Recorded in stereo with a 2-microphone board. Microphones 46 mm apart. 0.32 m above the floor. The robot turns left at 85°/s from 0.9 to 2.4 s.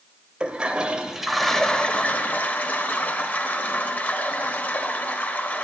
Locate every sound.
0.4 s a toilet flushing: 140° right, 0.6 m; by 5.7 s 95° left, 0.6 m